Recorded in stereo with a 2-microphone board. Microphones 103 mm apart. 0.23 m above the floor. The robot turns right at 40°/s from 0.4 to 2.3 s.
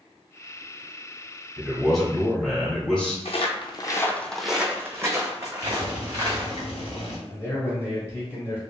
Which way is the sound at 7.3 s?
25° left (ahead or behind).